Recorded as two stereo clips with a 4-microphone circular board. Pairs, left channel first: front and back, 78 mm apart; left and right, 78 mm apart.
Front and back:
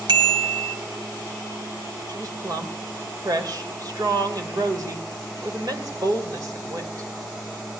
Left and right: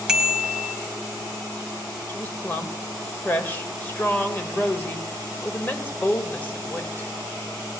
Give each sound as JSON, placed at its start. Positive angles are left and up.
{"t": 0.1, "sound": "a bicycle bell", "azimuth_deg": -170, "distance_m": 2.0}
{"t": 2.1, "sound": "a woman speaking", "azimuth_deg": 155, "distance_m": 2.0}